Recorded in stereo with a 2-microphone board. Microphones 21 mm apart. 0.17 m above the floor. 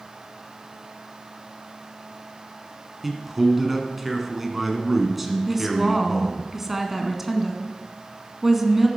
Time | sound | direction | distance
3.0 | a man speaking | 10° right (ahead or behind) | 1.8 m
5.5 | a woman speaking | 15° right (ahead or behind) | 1.5 m